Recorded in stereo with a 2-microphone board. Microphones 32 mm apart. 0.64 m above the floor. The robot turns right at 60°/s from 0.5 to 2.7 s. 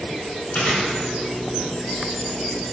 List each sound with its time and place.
0.5 s chewing: 60° left (ahead or behind), 1.5 m; by 2.1 s 5° right (ahead or behind), 1.5 m